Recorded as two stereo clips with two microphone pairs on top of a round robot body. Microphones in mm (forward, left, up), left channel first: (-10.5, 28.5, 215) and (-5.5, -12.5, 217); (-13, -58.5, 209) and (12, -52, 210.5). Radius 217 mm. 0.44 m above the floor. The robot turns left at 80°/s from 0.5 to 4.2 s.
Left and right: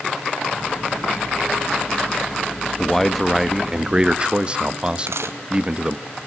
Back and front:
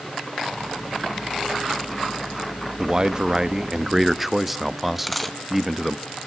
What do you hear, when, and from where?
2.8 s a man speaking: 45° left, 1.2 m; by 6.0 s 70° right, 1.2 m
5.0 s a dropped coin: 75° right, 2.0 m